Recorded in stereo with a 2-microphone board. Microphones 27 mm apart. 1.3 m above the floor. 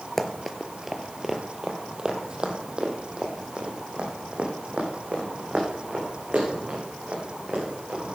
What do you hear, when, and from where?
0.2 s running footsteps: 5° left (ahead or behind), 1.3 m; by 8.0 s 45° right (ahead or behind), 7 m